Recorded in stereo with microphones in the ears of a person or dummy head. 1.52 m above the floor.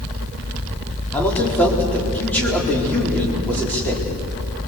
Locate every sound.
1.1 s a man speaking: 10° left (ahead or behind), 4 m